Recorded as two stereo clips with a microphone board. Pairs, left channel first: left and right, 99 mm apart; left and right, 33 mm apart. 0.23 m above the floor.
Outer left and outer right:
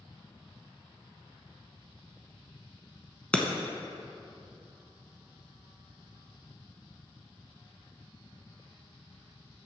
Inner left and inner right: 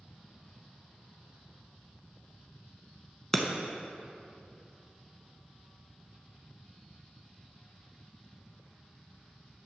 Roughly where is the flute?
I don't hear a flute.